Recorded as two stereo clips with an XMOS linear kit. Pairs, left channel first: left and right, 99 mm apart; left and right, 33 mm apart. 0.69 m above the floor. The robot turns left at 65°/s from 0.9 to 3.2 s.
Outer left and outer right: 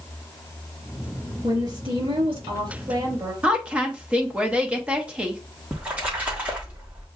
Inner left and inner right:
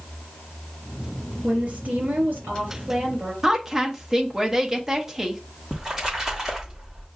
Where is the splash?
15° right (ahead or behind), 1.5 m.